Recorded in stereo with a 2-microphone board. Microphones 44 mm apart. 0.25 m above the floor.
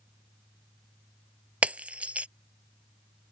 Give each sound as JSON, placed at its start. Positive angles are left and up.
{"t": 1.6, "sound": "breaking glass", "side_deg": -35}